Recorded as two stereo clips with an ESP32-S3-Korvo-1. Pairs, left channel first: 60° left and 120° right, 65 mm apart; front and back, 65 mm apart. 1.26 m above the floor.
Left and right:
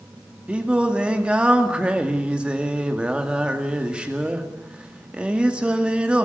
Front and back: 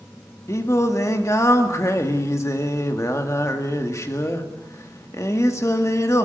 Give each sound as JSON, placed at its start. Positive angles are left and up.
{"t": 0.5, "sound": "singing", "azimuth_deg": -45, "distance_m": 2.0}